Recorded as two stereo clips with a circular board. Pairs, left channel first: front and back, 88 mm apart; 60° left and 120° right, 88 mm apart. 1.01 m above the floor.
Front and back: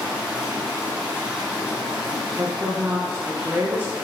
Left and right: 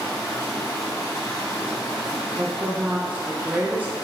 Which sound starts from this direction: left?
Running water, at 0.0 s.